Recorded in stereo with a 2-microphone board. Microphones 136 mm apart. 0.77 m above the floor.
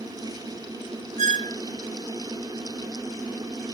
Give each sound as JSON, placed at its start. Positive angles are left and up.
{"t": 1.2, "sound": "a squeak", "side_deg": -60}